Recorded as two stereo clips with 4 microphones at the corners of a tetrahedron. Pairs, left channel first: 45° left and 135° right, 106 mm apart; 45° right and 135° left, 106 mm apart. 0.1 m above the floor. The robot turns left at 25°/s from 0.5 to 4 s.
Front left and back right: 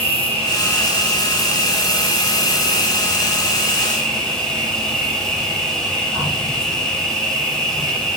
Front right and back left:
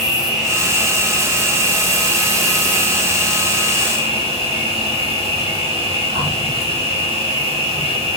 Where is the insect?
145° right, 5 m; by 8.2 s 130° left, 5 m.